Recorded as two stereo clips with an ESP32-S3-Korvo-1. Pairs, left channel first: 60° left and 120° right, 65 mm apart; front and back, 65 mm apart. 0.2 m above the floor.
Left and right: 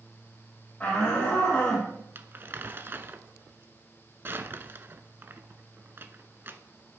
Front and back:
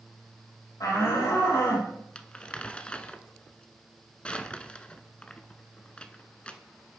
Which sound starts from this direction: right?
Crumpling, at 2.1 s.